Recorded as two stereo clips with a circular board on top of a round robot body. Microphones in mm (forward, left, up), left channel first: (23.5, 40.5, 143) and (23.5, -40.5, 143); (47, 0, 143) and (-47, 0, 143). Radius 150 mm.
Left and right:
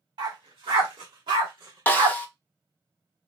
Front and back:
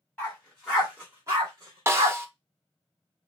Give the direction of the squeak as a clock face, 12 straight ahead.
I don't hear a squeak.